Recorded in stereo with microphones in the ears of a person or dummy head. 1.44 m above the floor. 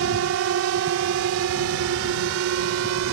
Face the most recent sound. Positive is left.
turn(degrees=-75)  # may be behind; listen again after turning